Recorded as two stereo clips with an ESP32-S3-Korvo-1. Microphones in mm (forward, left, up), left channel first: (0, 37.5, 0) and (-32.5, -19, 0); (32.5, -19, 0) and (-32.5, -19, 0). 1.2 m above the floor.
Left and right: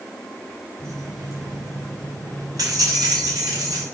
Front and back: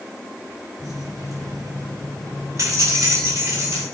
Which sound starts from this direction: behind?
Keys jangling, at 0.8 s.